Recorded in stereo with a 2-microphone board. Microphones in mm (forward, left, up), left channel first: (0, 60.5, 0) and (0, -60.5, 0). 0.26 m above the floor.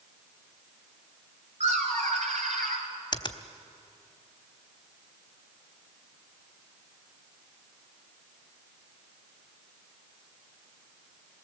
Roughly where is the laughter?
Right.